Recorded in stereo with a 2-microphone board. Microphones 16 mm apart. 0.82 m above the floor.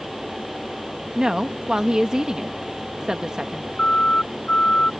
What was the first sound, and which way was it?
A woman speaking, 40° right (ahead or behind).